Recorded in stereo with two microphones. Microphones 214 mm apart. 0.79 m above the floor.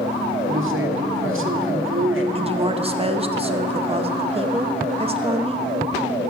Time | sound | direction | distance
0.5 | a man speaking | 70° right (ahead or behind) | 1.5 m
2.4 | a woman speaking | 25° right (ahead or behind) | 0.7 m